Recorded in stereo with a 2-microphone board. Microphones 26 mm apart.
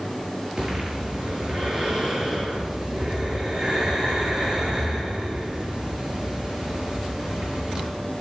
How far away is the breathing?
About 7.5 m.